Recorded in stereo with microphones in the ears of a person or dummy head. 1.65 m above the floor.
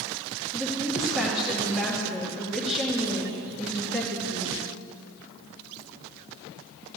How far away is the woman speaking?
About 2.5 m.